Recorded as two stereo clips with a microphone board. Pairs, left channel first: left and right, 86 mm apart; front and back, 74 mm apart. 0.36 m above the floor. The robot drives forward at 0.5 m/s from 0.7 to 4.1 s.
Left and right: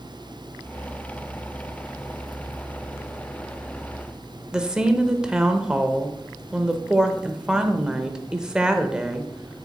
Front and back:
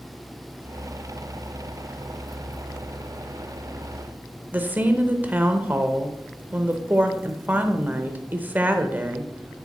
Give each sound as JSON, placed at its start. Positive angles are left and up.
{"t": 4.5, "sound": "a woman speaking", "azimuth_deg": -155, "distance_m": 0.8}